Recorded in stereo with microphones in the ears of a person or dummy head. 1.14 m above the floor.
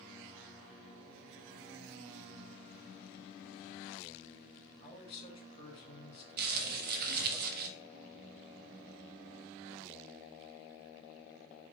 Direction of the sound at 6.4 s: 55° right (ahead or behind).